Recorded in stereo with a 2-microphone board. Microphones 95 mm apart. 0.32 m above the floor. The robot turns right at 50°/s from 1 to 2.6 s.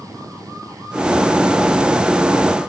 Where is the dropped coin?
I don't hear a dropped coin.